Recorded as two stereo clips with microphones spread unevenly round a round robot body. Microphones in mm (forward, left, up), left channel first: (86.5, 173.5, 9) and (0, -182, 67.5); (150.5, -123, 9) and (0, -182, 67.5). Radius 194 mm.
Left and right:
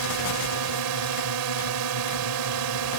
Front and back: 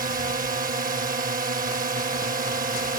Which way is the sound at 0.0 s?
125° right.